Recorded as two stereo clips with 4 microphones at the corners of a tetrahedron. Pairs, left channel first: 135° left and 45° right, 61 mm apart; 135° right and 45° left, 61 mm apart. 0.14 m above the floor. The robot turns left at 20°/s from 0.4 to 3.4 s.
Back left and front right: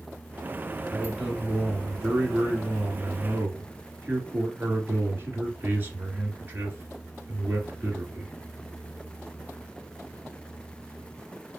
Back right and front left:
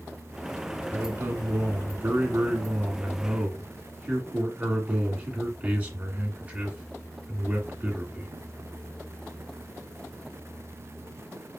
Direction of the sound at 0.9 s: 40° left.